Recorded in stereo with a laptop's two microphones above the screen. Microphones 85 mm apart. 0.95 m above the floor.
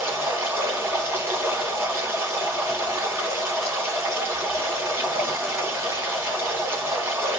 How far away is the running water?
About 1.5 m.